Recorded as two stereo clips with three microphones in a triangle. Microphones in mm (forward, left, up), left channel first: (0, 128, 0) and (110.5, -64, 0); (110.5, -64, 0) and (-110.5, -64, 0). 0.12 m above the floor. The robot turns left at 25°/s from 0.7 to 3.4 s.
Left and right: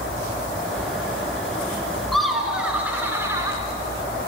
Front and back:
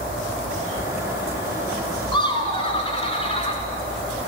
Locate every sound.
2.1 s laughter: 35° left, 1.2 m; by 3.6 s straight ahead, 1.2 m